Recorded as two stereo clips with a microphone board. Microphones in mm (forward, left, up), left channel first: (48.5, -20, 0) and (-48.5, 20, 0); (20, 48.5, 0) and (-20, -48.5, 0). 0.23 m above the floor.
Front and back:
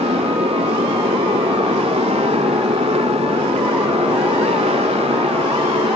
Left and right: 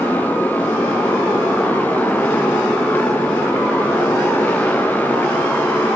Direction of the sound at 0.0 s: 140° left.